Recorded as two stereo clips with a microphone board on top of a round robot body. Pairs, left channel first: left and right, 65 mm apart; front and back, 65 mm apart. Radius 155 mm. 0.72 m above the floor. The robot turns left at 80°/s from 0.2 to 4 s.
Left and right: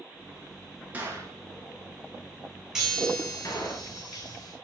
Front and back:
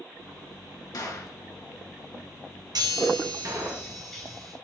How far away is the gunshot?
About 4 m.